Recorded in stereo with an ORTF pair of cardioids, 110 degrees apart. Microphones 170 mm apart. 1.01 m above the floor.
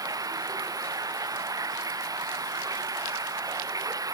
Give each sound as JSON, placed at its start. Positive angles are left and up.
{"t": 0.0, "sound": "running water", "azimuth_deg": -20}